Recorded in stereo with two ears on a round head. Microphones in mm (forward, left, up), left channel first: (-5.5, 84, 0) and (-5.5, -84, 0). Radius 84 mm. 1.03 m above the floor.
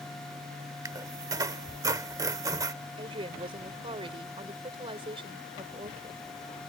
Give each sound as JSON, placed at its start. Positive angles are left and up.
{"t": 0.8, "sound": "a squeak", "side_deg": -20}
{"t": 3.0, "sound": "a woman speaking", "side_deg": -30}